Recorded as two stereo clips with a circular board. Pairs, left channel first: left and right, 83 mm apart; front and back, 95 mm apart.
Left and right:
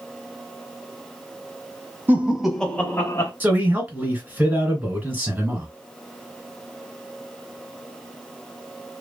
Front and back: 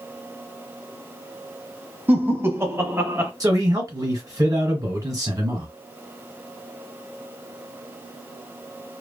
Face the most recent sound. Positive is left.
turn(degrees=-145)